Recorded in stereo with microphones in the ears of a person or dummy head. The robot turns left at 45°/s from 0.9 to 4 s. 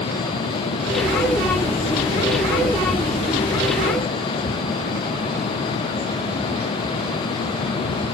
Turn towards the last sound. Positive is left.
No sound to turn to.